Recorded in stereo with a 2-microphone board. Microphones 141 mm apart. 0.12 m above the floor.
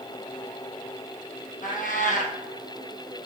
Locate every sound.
1.6 s a cat meowing: 75° left (ahead or behind), 1.6 m